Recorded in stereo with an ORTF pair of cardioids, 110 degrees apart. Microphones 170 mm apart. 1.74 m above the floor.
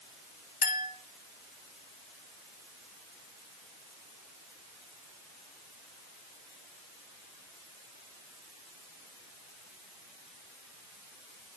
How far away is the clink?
About 2.5 m.